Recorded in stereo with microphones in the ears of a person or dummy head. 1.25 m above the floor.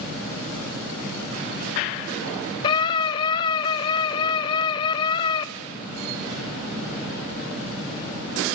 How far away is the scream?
About 0.6 m.